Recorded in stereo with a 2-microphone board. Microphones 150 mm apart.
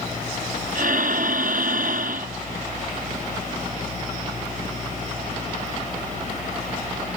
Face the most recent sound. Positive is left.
turn(degrees=-65)  # may be behind; listen again after turning